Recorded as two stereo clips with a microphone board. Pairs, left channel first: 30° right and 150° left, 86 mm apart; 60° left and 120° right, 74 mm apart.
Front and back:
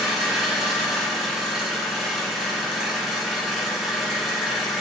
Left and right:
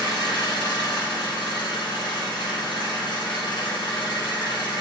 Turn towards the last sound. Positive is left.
turn(degrees=65)